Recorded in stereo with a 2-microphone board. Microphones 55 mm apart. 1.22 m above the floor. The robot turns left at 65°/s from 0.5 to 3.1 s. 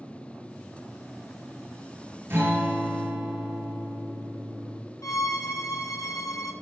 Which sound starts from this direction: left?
A violin, at 5.0 s.